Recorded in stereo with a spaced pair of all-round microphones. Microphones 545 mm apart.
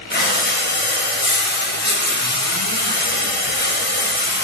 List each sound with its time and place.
0.1 s breathing: 20° left (ahead or behind), 0.6 m